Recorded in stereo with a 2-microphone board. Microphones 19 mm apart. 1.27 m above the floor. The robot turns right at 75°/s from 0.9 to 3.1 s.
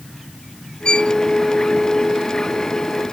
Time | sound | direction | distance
0.8 | a violin | 45° left (ahead or behind) | ?